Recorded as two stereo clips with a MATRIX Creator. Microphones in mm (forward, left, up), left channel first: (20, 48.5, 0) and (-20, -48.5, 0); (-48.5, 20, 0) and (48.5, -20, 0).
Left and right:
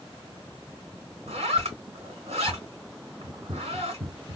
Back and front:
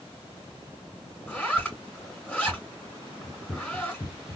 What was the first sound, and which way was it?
A zipper, 125° right.